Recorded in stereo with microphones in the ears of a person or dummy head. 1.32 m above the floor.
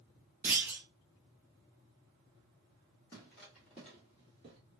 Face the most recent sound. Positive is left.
turn(degrees=-25)  # may be behind; listen again after turning